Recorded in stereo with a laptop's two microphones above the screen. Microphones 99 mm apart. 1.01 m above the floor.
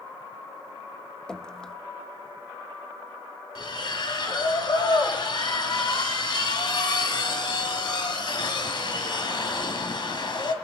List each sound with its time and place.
1.3 s dripping: 10° left (ahead or behind), 0.5 m
3.5 s a splash: 55° left (ahead or behind), 1.8 m